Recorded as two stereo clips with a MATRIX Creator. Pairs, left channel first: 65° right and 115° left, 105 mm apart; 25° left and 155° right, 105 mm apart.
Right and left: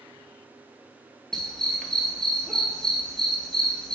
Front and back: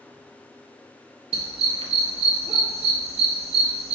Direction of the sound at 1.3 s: 150° right.